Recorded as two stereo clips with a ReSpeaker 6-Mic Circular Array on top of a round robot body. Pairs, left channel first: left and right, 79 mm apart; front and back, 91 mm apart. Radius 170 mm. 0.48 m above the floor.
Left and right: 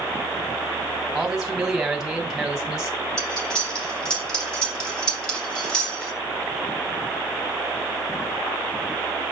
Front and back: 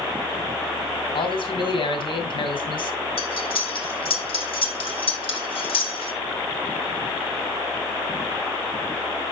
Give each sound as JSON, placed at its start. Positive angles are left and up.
{"t": 1.1, "sound": "a man speaking", "azimuth_deg": -5, "distance_m": 2.0}
{"t": 3.2, "sound": "cutlery clinking", "azimuth_deg": 10, "distance_m": 2.5}